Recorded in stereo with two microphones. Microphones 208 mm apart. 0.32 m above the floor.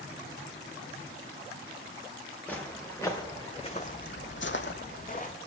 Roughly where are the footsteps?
Centre.